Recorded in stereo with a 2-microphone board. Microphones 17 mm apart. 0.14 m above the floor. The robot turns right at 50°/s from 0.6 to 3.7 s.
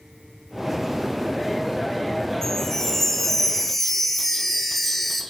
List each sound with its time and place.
2.4 s a chime: 20° left (ahead or behind), 1.7 m; by 5.2 s 5° left (ahead or behind), 1.7 m